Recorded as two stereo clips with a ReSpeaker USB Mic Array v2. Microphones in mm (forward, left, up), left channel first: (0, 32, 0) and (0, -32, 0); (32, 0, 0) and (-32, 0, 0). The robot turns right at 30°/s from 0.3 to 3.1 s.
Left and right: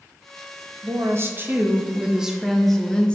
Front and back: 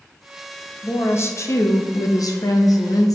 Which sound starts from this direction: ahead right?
A woman speaking, at 0.8 s.